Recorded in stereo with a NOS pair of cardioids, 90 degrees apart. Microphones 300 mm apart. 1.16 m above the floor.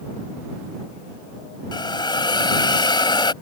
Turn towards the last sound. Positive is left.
turn(degrees=15)